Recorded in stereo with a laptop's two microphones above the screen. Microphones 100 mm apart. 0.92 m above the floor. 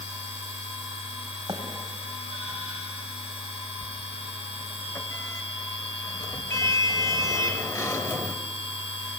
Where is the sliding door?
30° left (ahead or behind), 0.9 m.